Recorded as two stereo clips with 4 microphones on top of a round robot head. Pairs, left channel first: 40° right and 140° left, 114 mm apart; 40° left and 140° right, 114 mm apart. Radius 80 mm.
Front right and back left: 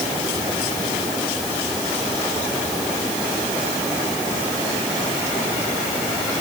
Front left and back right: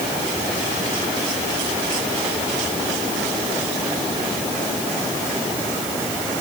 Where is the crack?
No crack in this recording.